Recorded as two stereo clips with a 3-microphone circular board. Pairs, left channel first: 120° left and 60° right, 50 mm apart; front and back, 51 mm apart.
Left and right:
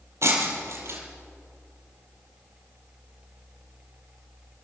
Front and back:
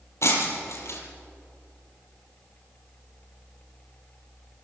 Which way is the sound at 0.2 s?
30° right.